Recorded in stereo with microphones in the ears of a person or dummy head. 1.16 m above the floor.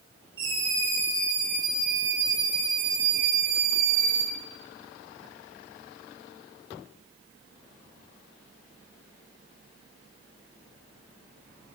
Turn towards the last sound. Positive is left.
turn(degrees=-50)  # may be behind; listen again after turning